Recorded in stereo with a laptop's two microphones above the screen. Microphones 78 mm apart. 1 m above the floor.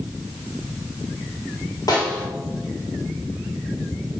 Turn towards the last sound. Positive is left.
turn(degrees=60)  # may be behind; listen again after turning